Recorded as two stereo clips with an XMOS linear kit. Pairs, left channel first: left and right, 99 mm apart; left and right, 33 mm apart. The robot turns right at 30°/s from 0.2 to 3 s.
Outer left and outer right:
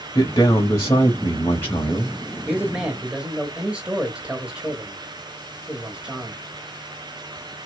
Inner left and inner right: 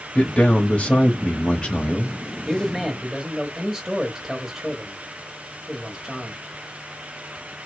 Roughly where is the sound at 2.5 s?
Centre.